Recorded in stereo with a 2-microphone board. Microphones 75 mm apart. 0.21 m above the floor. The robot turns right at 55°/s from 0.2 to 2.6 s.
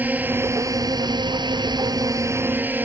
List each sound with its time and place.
0.0 s a drone: 155° right; by 2.9 s 25° right